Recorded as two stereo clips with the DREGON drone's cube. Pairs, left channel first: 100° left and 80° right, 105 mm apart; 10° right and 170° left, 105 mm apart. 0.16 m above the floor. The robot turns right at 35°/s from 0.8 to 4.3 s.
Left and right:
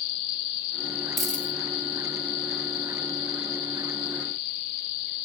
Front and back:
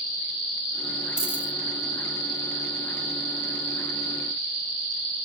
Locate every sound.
1.2 s a dropped coin: 10° left, 0.9 m; by 1.5 s 25° left, 0.9 m